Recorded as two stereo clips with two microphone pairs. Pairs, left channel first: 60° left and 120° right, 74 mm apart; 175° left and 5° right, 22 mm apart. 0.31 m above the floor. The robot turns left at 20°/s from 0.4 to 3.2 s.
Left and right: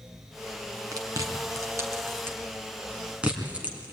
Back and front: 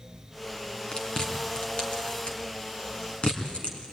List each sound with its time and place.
0.9 s chewing: 145° right, 3 m; by 3.9 s 170° left, 3 m